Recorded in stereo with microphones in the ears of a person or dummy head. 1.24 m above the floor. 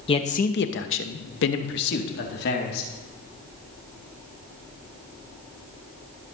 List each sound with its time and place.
0.1 s a man speaking: 25° left (ahead or behind), 1.0 m; by 2.9 s 55° left (ahead or behind), 2.5 m